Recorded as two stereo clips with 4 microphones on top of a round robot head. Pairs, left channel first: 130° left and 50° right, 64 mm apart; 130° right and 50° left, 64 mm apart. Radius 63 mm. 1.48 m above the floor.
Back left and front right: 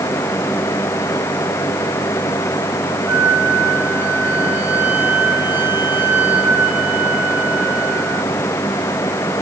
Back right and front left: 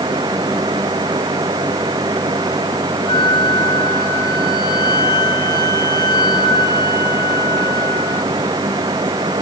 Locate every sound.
3.1 s a flute: 115° right, 3 m